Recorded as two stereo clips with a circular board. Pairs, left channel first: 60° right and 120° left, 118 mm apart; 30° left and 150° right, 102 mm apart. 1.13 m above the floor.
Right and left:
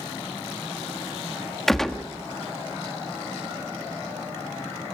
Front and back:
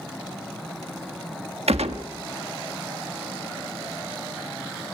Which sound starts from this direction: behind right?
A gunshot, at 1.7 s.